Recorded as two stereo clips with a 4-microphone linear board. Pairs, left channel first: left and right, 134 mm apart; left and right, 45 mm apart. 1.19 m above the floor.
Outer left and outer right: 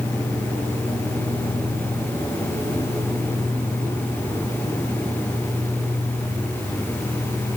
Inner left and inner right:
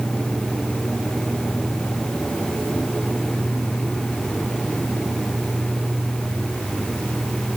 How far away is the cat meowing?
I don't hear a cat meowing.